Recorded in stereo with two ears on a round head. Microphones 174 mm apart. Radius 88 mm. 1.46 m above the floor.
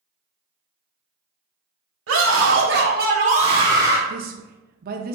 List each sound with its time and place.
2.1 s a scream: 75° right (ahead or behind), 1.4 m; by 4.0 s 10° right (ahead or behind), 1.2 m
4.1 s a woman speaking: 45° right (ahead or behind), 0.6 m